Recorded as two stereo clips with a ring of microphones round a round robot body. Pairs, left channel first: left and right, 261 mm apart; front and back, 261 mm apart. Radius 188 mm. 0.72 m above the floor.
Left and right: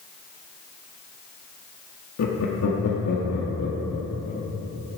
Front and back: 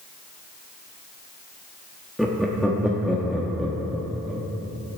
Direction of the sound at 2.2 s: 90° left.